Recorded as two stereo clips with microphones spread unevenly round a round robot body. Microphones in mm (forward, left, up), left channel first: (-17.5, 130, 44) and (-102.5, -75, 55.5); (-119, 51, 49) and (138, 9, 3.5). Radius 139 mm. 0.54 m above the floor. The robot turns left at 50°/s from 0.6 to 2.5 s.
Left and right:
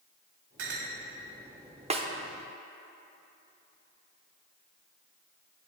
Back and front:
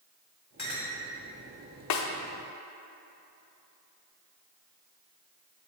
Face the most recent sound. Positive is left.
turn(degrees=155)